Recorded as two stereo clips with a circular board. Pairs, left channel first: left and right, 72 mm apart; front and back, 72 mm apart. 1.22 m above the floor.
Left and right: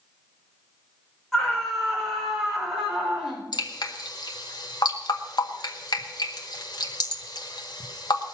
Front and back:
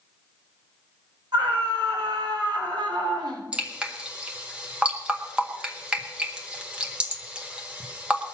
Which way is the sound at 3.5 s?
105° left.